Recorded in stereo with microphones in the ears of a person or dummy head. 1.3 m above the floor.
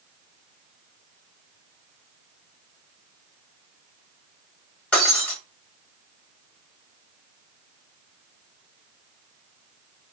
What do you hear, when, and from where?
4.9 s breaking glass: 5° left (ahead or behind), 1.1 m